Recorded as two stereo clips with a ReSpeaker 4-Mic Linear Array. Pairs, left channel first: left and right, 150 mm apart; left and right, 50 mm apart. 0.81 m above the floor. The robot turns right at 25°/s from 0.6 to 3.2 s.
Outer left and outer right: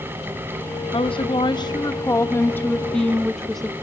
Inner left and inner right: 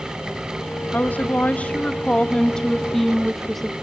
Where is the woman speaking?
120° left, 0.7 m; by 3.7 s straight behind, 0.7 m.